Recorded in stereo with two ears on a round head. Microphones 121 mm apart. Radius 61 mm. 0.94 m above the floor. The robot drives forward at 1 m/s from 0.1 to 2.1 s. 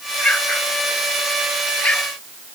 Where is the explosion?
10° left (ahead or behind).